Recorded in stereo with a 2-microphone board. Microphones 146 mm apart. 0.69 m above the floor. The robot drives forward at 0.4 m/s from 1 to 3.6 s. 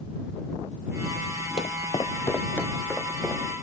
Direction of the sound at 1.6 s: 45° left (ahead or behind).